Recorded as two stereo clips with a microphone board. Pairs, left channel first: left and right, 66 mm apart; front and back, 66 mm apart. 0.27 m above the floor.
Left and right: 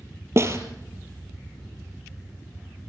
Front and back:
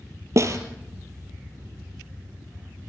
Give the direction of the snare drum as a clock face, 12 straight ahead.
5 o'clock.